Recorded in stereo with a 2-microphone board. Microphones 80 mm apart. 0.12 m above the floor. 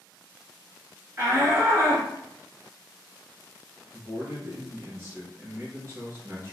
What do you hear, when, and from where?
1.2 s a shout: 35° right (ahead or behind), 1.4 m
3.9 s a man speaking: 35° right (ahead or behind), 1.6 m